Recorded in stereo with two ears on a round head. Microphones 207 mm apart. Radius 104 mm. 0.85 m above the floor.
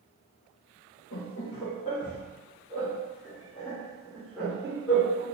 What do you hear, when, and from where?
1.1 s laughter: 45° left (ahead or behind), 0.7 m; by 5.2 s 5° right (ahead or behind), 2.5 m